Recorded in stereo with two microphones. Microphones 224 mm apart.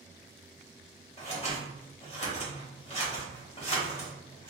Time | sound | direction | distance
1.2 | scissors | 30° left (ahead or behind) | 1.9 m